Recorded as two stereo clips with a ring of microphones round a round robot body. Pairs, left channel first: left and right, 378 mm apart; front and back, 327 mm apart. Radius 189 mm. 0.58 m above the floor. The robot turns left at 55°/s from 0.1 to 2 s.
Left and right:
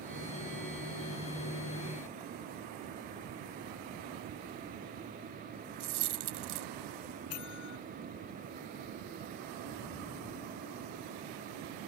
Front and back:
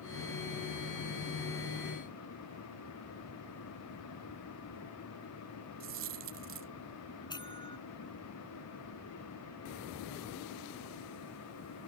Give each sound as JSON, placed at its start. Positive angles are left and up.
{"t": 5.8, "sound": "a dropped coin", "azimuth_deg": -120}
{"t": 7.3, "sound": "a bell", "azimuth_deg": 75}